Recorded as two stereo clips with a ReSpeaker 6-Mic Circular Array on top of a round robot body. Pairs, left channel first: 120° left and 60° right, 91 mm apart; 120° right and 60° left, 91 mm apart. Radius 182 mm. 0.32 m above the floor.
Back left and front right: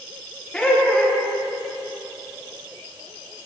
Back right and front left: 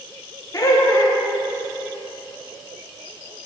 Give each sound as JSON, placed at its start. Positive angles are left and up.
{"t": 0.5, "sound": "laughter", "azimuth_deg": -160, "distance_m": 1.6}